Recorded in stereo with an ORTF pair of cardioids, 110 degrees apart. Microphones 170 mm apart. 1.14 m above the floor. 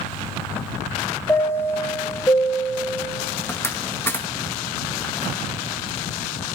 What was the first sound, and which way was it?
A chime, 15° left.